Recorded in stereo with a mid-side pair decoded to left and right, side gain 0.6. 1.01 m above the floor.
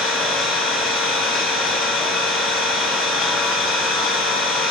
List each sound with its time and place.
0.0 s an engine running: 60° left, 4.5 m